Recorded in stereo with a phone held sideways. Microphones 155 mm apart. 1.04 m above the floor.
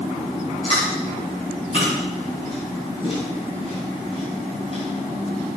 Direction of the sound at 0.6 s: 40° left (ahead or behind).